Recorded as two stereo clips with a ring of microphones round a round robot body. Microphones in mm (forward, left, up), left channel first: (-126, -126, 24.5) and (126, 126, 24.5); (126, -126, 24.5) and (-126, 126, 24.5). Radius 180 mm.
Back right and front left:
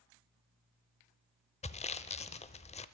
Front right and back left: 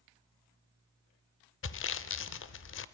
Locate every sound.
1.6 s sawing: 75° right, 0.7 m